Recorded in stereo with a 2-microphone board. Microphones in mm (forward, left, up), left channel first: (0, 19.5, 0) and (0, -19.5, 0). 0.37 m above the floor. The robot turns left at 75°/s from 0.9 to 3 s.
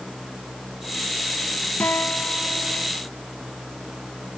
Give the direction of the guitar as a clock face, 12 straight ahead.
9 o'clock.